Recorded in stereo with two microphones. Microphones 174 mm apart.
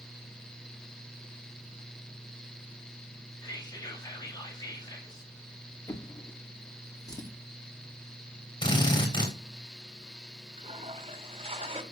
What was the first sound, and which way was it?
Whispering, 25° left (ahead or behind).